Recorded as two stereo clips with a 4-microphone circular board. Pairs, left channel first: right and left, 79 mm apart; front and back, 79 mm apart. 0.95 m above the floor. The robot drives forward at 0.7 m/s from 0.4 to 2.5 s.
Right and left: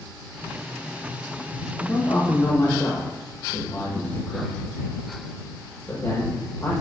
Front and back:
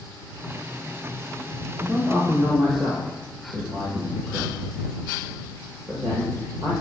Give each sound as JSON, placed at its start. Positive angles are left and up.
{"t": 1.8, "sound": "a man speaking", "azimuth_deg": -115, "distance_m": 0.9}